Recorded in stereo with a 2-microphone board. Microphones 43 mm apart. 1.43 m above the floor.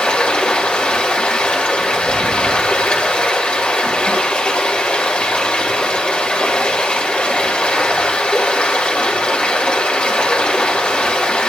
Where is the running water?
30° left (ahead or behind), 2.5 m.